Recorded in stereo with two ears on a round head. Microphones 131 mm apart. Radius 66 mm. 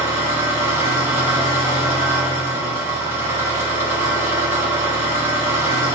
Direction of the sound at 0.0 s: 15° right (ahead or behind).